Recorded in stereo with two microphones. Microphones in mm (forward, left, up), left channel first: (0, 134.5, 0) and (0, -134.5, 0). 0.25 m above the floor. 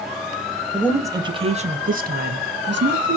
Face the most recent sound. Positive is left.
turn(degrees=-45)  # may be behind; listen again after turning